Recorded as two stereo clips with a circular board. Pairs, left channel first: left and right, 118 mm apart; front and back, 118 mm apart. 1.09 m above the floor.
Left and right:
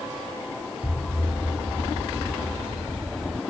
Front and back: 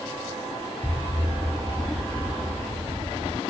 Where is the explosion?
120° right.